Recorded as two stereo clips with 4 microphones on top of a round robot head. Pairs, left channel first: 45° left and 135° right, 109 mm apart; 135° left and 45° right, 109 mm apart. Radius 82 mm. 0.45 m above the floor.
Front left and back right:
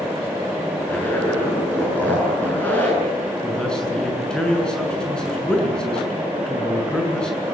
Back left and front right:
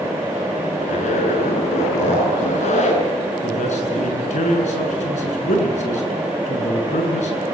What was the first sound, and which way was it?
A zipper, 120° left.